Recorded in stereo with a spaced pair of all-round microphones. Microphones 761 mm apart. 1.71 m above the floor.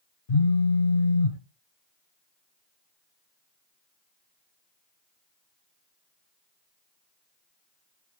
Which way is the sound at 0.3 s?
90° left.